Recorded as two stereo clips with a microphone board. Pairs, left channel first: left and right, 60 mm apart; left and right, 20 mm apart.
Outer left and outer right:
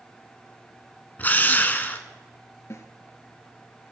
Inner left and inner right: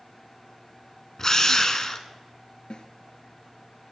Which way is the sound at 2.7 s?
50° left (ahead or behind).